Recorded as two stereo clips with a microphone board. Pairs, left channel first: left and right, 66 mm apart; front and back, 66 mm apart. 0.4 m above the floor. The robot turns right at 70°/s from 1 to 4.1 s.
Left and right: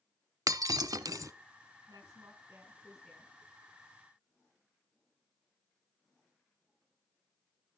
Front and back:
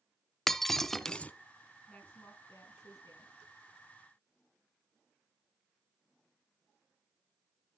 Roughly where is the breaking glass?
Right.